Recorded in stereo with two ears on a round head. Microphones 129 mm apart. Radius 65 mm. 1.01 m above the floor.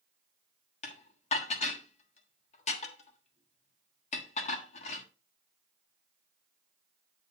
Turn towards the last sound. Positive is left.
turn(degrees=45)  # may be behind; listen again after turning